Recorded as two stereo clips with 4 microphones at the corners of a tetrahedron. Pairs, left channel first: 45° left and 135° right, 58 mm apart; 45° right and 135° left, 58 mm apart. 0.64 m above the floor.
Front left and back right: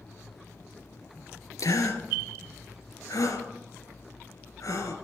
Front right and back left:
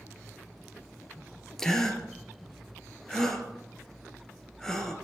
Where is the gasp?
35° left, 2 m.